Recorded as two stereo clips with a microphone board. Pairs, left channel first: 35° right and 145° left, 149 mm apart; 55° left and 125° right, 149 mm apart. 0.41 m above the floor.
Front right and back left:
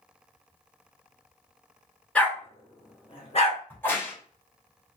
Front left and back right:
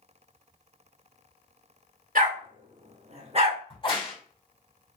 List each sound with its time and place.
2.1 s a dog barking: 115° right, 1.2 m; by 3.6 s 75° right, 1.3 m
3.7 s a crack: 30° left, 1.5 m